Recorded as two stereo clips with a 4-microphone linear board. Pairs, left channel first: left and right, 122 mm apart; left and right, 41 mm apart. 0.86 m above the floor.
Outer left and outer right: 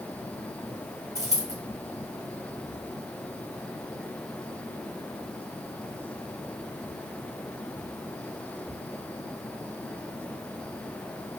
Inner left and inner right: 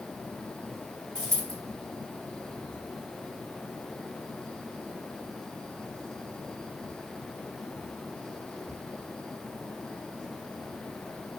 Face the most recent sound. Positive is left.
turn(degrees=25)  # may be behind; listen again after turning